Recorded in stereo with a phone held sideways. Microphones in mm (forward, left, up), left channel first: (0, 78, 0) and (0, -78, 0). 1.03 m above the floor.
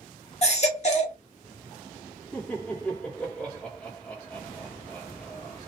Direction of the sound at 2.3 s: 10° left (ahead or behind).